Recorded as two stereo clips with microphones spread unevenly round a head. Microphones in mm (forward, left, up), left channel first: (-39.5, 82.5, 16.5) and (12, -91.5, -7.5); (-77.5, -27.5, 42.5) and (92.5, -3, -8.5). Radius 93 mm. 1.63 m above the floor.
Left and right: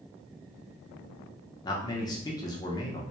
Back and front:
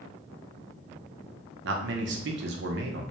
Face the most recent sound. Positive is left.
turn(degrees=40)